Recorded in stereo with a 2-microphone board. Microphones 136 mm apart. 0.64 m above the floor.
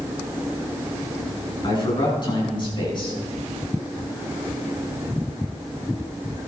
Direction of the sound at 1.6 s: 35° left (ahead or behind).